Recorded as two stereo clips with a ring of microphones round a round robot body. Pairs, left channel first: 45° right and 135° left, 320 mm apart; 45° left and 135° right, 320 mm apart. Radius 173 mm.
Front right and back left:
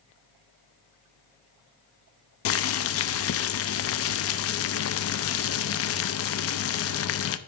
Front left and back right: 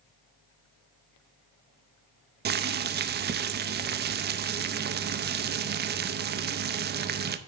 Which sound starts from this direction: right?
Boiling, at 2.5 s.